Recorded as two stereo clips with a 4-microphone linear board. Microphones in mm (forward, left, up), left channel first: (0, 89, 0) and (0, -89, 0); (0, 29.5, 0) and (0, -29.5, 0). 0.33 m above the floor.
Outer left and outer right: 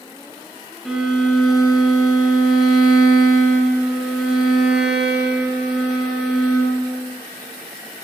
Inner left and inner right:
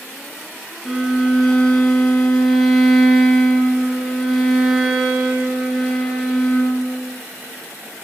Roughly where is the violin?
Centre.